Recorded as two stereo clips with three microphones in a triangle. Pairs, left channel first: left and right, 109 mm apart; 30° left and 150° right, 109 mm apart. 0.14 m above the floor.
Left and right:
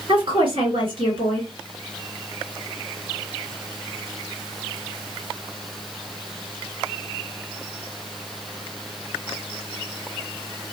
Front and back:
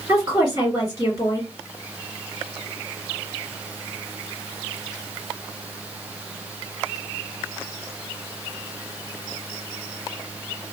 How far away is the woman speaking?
About 2.5 m.